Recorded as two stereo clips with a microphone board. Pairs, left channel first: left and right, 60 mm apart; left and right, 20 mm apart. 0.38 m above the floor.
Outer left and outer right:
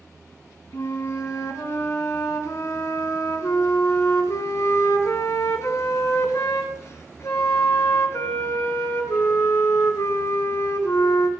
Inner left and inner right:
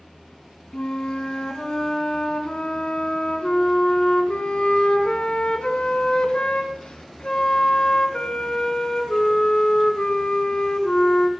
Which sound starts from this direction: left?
A flute, at 0.7 s.